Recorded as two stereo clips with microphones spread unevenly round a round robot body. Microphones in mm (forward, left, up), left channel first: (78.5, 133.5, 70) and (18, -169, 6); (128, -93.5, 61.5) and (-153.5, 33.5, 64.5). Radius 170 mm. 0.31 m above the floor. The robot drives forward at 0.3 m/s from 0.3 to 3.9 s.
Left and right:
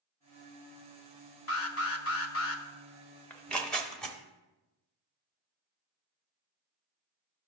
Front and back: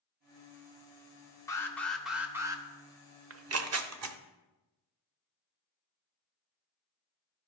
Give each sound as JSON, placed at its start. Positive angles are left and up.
{"t": 1.5, "sound": "an alarm", "azimuth_deg": 50, "distance_m": 0.9}
{"t": 3.3, "sound": "tearing paper", "azimuth_deg": 175, "distance_m": 0.6}